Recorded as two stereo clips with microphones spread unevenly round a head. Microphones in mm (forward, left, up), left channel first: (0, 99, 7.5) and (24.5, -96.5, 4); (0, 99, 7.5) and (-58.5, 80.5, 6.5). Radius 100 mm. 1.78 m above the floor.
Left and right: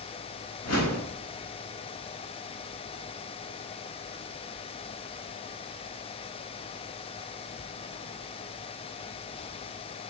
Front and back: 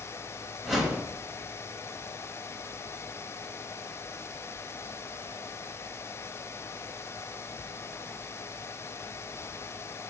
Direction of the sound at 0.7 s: 115° left.